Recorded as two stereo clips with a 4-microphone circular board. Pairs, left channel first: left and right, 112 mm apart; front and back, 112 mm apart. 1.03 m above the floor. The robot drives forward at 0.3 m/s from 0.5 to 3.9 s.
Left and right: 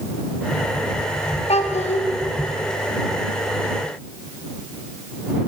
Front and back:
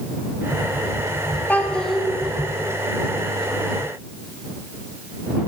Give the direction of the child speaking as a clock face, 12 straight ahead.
10 o'clock.